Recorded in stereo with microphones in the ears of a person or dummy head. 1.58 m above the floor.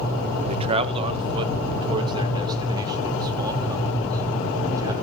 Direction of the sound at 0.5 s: 35° right (ahead or behind).